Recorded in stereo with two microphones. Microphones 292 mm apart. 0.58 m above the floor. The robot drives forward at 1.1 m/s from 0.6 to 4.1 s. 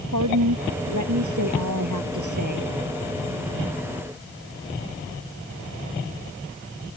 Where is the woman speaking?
80° right; by 2.7 s 85° right.